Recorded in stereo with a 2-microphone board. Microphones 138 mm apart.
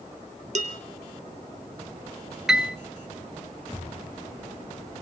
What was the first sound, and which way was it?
Dishes clattering, 60° right (ahead or behind).